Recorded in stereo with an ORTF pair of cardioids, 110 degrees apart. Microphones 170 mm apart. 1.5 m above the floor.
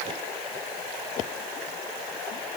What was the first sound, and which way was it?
Only background noise.